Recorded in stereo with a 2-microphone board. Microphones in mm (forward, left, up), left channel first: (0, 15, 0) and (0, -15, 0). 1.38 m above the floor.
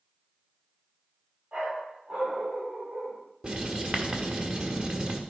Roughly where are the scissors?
I don't hear scissors.